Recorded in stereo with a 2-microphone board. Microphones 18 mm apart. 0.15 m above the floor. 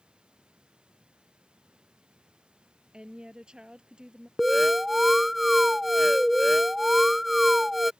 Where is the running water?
70° right (ahead or behind).